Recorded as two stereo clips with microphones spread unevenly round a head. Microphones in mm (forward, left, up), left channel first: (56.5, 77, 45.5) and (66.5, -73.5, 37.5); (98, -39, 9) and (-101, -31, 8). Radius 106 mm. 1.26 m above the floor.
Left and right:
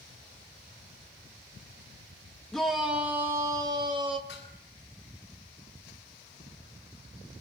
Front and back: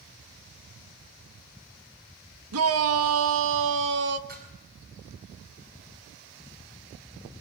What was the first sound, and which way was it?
A shout, straight behind.